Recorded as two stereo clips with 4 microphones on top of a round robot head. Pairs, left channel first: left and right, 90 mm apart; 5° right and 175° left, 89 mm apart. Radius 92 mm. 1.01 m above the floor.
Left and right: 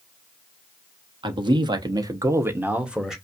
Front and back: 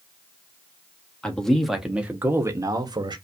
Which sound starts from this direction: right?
A man speaking, at 1.2 s.